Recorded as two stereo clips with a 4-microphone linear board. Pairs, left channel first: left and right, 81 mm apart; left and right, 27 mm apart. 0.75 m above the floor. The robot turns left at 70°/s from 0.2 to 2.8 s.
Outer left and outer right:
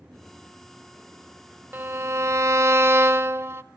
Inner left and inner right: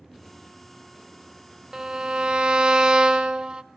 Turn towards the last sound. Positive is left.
turn(degrees=-115)